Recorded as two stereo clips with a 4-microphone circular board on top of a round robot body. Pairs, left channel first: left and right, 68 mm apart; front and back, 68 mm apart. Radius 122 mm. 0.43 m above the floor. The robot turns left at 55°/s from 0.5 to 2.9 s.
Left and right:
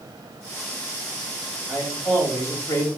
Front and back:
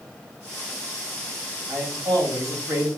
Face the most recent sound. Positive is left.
turn(degrees=130)